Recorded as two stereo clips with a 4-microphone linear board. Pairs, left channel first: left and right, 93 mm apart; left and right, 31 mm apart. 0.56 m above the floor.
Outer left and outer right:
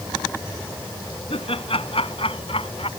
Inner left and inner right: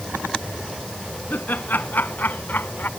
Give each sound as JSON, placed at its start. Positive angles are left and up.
{"t": 1.3, "sound": "laughter", "side_deg": 80}